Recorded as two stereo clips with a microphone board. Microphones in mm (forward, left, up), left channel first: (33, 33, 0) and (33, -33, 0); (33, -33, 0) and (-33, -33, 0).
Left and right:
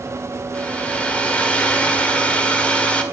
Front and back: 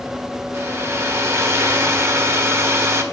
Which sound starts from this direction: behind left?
A hair dryer, at 0.5 s.